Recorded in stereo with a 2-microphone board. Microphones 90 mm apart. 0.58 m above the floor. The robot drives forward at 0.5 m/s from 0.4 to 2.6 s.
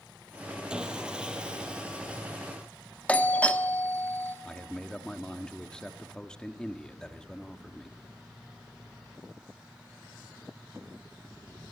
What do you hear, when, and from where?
0.7 s sawing: 10° right (ahead or behind), 2.5 m
3.1 s a doorbell: 15° left (ahead or behind), 1.0 m
4.5 s a man speaking: 10° left (ahead or behind), 1.2 m